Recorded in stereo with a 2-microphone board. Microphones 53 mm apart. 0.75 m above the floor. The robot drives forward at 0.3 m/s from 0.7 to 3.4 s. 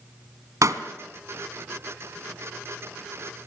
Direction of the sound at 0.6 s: 75° right (ahead or behind).